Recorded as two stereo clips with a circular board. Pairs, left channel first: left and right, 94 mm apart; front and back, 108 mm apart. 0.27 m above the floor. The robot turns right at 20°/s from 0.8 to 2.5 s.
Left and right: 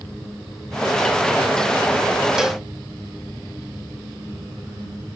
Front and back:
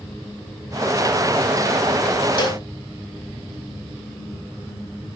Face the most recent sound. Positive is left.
turn(degrees=-10)